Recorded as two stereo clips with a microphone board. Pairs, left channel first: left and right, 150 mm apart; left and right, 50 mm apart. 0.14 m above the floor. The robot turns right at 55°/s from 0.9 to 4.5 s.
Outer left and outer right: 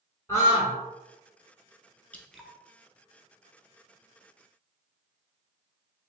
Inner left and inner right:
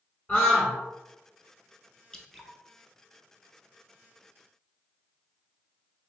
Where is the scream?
20° left (ahead or behind), 1.2 m.